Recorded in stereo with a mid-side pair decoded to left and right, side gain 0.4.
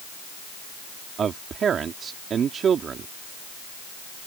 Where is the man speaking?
60° right.